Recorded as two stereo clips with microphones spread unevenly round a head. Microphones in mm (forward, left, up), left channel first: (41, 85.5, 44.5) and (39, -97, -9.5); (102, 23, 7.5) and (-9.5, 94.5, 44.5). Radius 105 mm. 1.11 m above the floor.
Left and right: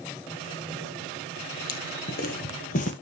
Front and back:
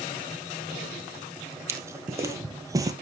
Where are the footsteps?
90° left, 2 m; by 2.9 s 105° left, 1.7 m.